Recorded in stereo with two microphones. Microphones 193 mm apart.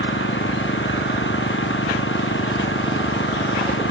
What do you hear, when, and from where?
0.0 s an engine running: 90° left